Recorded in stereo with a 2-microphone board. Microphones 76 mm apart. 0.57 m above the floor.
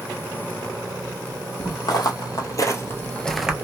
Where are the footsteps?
60° left (ahead or behind), 1.3 m; by 3.5 s 10° right (ahead or behind), 0.5 m.